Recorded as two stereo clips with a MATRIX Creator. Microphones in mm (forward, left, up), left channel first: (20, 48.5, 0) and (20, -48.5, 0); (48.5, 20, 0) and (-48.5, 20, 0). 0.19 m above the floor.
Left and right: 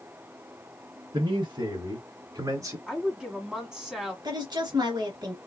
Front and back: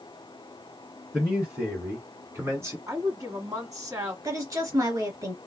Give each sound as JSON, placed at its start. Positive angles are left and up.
{"t": 1.1, "sound": "a man speaking", "azimuth_deg": -100, "distance_m": 2.0}
{"t": 2.9, "sound": "a woman speaking", "azimuth_deg": -170, "distance_m": 1.4}
{"t": 4.2, "sound": "a woman speaking", "azimuth_deg": -130, "distance_m": 2.0}